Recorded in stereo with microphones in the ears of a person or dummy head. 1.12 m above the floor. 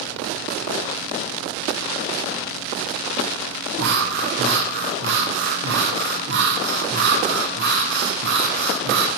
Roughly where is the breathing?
Right.